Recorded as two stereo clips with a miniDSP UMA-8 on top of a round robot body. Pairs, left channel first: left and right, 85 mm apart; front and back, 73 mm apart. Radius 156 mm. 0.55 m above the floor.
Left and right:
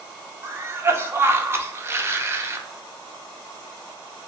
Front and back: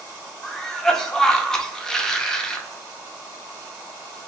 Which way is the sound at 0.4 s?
75° right.